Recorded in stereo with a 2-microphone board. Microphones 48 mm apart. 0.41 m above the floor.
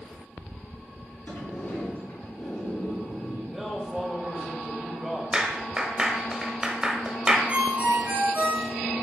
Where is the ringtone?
40° right (ahead or behind), 2.5 m.